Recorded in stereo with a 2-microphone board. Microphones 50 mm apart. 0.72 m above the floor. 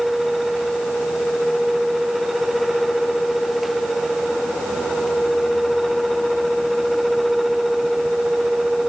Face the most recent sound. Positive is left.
No sound to turn to.